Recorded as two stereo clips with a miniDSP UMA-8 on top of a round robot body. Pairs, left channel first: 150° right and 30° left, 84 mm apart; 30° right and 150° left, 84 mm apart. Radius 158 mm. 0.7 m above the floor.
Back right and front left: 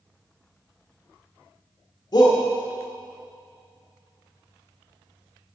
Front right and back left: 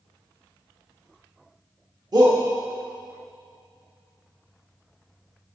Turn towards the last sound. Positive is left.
turn(degrees=175)